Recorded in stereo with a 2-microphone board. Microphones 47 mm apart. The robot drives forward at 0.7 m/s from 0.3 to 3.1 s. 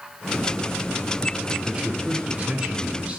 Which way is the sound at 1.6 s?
15° right (ahead or behind).